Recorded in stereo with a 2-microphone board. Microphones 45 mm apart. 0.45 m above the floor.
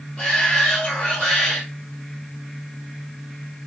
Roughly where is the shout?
Centre.